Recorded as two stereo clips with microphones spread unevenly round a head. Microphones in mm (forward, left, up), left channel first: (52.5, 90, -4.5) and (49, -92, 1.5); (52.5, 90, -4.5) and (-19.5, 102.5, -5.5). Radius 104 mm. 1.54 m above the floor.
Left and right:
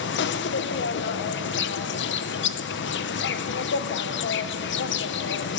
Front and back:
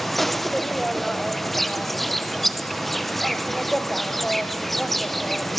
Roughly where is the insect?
Left.